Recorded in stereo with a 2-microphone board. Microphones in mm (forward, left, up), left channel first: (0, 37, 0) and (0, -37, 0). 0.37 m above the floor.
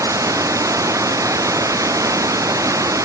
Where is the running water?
50° right (ahead or behind).